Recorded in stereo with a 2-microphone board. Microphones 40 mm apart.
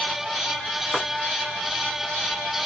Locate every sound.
0.9 s chopping: 20° right (ahead or behind), 1.5 m